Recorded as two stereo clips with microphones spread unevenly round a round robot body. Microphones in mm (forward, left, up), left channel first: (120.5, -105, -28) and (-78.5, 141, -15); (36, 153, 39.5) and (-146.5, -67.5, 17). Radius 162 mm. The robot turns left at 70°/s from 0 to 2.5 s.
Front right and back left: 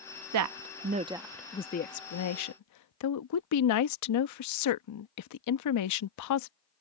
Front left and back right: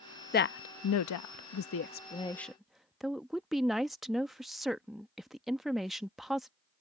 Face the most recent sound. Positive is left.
turn(degrees=-45)